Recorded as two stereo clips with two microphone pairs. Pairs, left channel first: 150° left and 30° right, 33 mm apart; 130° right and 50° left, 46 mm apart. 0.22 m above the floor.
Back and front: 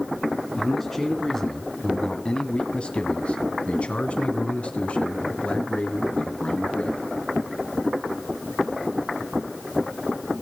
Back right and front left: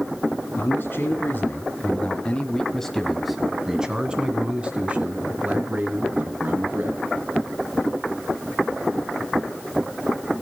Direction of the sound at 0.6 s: 130° right.